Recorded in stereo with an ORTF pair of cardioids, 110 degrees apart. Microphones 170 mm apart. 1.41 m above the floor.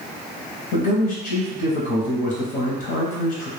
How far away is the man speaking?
About 0.6 m.